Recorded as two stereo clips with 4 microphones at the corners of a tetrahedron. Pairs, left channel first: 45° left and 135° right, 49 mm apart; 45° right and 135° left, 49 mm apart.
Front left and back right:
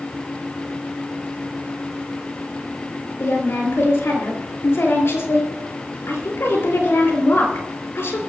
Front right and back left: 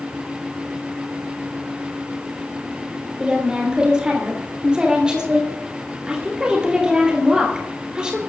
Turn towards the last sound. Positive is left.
turn(degrees=65)